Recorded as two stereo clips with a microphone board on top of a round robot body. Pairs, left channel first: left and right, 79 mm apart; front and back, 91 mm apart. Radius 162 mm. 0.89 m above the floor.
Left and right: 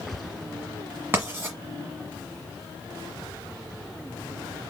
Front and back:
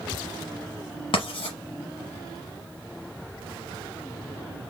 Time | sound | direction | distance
1.1 | writing | 30° right | 1.2 m